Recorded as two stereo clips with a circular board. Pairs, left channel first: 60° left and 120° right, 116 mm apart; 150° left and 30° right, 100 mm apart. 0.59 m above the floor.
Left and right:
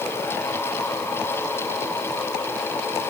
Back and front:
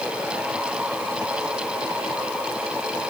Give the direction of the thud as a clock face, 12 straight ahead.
No thud in this recording.